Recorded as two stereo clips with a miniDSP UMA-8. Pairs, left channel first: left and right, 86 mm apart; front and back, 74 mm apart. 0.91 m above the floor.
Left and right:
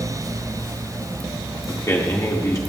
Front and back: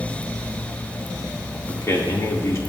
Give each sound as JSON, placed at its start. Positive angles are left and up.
{"t": 1.7, "sound": "a man speaking", "azimuth_deg": 45, "distance_m": 1.5}